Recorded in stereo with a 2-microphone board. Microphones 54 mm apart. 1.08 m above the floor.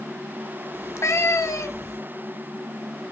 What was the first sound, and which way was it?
A cat meowing, 60° left (ahead or behind).